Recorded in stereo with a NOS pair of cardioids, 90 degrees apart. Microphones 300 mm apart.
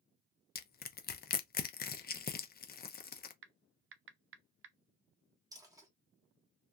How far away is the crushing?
About 0.5 m.